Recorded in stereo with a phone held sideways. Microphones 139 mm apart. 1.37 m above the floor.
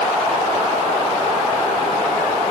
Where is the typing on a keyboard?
I don't hear typing on a keyboard.